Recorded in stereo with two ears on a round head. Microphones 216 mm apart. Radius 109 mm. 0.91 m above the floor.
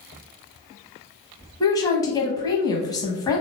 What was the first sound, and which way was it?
A woman speaking, 15° left (ahead or behind).